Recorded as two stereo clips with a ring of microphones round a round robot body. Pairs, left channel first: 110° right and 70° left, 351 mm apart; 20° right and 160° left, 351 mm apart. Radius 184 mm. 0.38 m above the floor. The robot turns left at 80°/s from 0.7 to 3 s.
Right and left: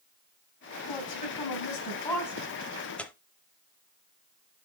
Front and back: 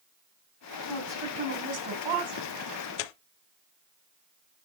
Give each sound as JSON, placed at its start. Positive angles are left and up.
{"t": 0.9, "sound": "a woman speaking", "azimuth_deg": -95, "distance_m": 2.5}
{"t": 3.0, "sound": "tearing paper", "azimuth_deg": -25, "distance_m": 0.5}